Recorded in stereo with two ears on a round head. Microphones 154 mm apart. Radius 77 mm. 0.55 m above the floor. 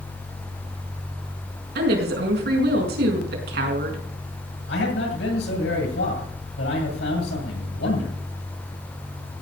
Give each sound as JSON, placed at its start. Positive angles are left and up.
{"t": 1.8, "sound": "a woman speaking", "side_deg": -70, "distance_m": 5.0}
{"t": 4.7, "sound": "a man speaking", "side_deg": 80, "distance_m": 9.0}